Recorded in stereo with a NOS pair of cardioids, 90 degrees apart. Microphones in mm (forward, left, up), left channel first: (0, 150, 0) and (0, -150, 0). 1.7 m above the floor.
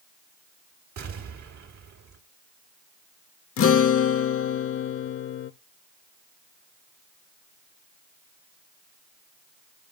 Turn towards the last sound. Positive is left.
turn(degrees=45)